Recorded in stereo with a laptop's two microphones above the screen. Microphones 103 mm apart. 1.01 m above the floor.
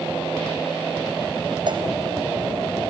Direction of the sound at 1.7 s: 50° right (ahead or behind).